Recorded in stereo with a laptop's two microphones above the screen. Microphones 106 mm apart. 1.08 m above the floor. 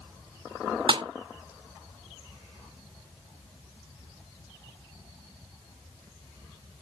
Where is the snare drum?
55° right (ahead or behind).